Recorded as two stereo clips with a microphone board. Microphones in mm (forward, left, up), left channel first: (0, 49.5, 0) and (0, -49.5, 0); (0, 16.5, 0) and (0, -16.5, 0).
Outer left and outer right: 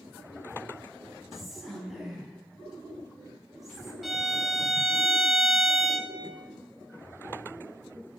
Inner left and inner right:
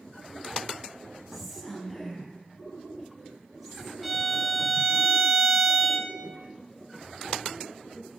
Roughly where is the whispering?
Centre.